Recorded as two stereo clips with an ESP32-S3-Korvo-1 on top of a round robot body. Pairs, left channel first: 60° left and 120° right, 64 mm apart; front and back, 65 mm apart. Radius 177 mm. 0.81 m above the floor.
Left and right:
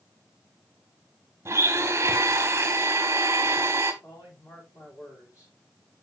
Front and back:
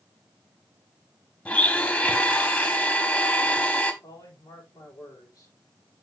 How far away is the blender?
About 0.9 m.